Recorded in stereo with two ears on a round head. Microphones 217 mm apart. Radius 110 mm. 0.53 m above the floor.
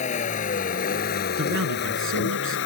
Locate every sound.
0.0 s a vehicle: 30° left (ahead or behind); by 2.7 s 50° left (ahead or behind)
1.4 s a man speaking: 55° right (ahead or behind)